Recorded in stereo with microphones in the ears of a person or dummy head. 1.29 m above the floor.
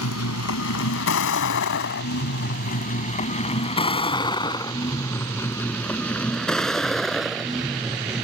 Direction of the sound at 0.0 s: 85° left.